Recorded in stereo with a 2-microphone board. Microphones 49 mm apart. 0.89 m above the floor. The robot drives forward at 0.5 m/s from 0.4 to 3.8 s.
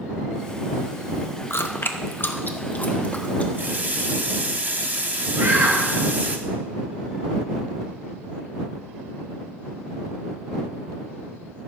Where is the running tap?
45° right (ahead or behind), 1.0 m; by 6.4 s 40° right (ahead or behind), 1.1 m.